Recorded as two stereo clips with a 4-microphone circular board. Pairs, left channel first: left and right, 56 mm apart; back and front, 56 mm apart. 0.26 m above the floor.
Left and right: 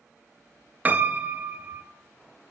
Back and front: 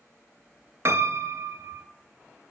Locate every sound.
0.8 s a piano: 30° right, 0.6 m